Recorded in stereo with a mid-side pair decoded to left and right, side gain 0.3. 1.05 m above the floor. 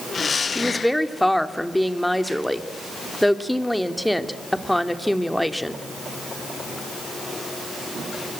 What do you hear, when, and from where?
0.6 s a woman speaking: 10° left, 2.5 m